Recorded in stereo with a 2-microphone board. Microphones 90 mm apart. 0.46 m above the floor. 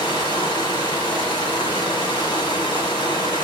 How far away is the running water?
About 4.5 m.